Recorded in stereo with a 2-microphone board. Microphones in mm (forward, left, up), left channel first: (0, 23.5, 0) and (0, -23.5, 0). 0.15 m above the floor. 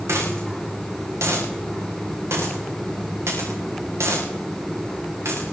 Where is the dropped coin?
70° right (ahead or behind), 8 m.